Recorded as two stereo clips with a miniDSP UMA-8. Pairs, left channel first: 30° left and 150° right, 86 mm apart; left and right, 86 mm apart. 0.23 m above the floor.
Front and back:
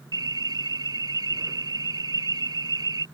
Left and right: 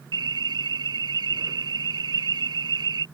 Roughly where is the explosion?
I don't hear an explosion.